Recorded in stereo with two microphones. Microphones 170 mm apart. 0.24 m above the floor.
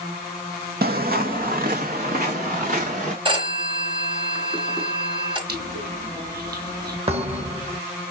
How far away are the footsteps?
About 0.6 m.